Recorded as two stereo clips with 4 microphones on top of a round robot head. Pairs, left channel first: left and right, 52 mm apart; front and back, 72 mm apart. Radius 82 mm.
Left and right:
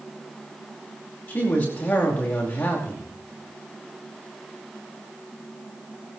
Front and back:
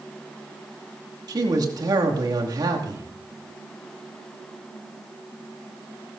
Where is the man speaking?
150° left, 2.5 m.